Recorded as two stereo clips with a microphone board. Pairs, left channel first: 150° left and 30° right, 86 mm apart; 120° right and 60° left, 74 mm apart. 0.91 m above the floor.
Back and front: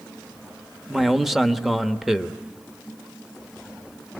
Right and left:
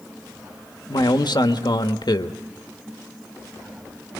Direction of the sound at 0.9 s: 115° right.